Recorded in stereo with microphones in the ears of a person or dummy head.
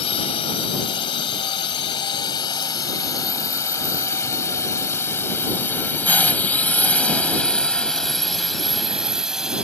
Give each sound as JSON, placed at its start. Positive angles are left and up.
{"t": 0.0, "sound": "a drone", "side_deg": 30}